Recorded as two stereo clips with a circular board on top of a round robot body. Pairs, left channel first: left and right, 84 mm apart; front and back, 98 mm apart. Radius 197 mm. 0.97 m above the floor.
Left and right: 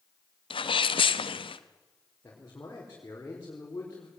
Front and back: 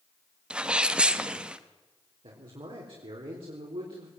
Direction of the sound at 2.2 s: 150° left.